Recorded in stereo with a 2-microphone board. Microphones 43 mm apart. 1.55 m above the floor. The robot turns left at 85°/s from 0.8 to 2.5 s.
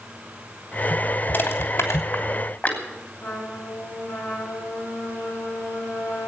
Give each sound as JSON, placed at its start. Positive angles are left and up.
{"t": 1.3, "sound": "crushing", "side_deg": 40, "distance_m": 3.0}
{"t": 3.2, "sound": "a trumpet", "side_deg": 75, "distance_m": 8.0}